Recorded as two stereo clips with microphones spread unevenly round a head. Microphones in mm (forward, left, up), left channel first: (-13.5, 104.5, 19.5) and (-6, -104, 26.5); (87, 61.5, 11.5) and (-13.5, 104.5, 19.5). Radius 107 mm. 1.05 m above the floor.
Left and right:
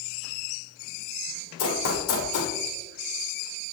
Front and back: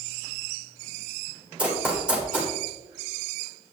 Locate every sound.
1.6 s running footsteps: 80° left, 2.5 m